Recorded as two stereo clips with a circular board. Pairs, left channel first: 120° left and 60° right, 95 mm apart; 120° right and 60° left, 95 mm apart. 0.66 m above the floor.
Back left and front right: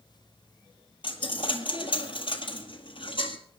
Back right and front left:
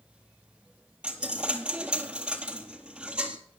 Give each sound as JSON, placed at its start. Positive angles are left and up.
{"t": 1.0, "sound": "a dropped coin", "azimuth_deg": 140, "distance_m": 1.3}